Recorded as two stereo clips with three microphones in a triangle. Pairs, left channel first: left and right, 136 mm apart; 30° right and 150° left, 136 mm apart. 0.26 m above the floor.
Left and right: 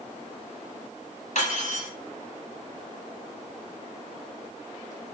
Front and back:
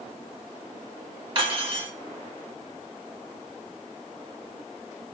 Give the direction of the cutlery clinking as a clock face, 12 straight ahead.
9 o'clock.